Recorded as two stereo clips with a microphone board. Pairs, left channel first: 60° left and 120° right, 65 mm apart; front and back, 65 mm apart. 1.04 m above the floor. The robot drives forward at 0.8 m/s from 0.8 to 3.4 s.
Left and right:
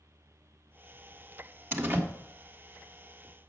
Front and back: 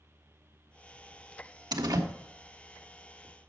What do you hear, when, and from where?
1.7 s a door slam: straight behind, 1.0 m